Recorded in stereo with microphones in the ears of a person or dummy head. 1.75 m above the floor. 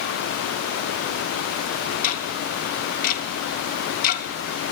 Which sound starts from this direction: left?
Ticking, at 2.0 s.